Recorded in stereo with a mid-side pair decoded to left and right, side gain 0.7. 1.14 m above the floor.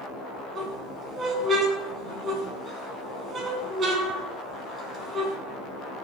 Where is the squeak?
35° right, 3.5 m.